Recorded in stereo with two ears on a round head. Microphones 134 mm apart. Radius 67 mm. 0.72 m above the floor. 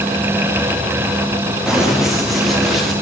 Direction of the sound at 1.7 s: 5° right (ahead or behind).